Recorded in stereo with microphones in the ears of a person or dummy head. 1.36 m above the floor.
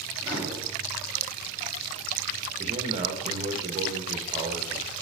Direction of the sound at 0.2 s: 15° right (ahead or behind).